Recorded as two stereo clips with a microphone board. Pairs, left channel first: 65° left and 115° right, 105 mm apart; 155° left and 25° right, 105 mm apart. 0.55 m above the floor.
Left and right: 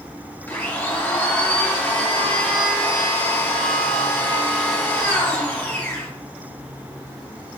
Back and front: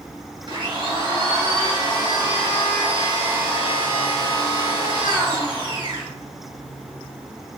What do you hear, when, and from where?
0.5 s a blender: straight ahead, 1.4 m